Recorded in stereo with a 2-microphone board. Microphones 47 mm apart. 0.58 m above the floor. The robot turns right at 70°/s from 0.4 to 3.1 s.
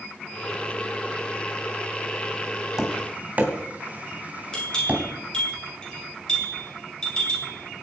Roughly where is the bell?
Centre.